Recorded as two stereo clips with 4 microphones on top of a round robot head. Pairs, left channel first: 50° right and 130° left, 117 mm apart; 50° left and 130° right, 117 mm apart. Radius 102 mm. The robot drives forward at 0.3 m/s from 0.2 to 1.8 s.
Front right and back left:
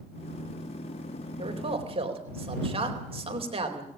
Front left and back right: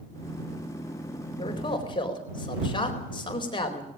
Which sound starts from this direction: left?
A man speaking, at 1.4 s.